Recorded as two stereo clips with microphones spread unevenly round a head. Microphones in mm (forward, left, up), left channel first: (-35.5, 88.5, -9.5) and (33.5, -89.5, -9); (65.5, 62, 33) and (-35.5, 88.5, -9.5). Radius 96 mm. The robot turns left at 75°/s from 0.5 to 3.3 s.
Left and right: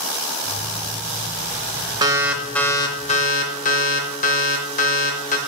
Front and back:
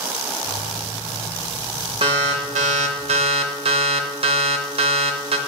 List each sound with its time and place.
2.0 s an alarm: 130° right, 0.8 m; by 5.4 s 135° left, 0.8 m